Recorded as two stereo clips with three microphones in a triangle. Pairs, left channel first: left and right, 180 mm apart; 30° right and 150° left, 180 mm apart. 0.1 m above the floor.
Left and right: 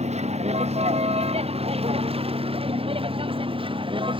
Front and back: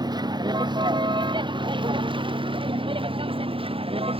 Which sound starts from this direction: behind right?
A vehicle, at 0.0 s.